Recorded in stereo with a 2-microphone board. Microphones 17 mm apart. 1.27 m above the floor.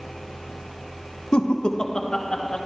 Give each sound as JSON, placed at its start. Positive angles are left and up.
{"t": 1.3, "sound": "laughter", "side_deg": 70, "distance_m": 0.9}